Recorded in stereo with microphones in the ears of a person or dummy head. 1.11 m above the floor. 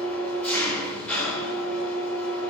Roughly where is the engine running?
Centre.